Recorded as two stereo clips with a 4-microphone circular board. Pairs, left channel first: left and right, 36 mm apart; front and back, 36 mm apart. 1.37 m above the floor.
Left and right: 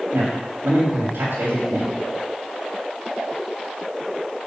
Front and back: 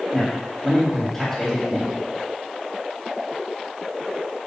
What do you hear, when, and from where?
0.1 s a man speaking: 85° right, 3.5 m